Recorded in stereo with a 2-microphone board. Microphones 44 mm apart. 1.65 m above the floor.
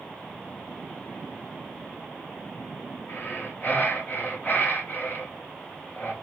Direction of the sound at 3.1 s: 45° left (ahead or behind).